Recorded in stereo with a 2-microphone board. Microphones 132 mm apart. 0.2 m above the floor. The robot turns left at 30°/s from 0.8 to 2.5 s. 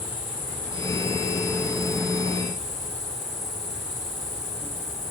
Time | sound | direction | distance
0.0 | an insect | 165° left | 4 m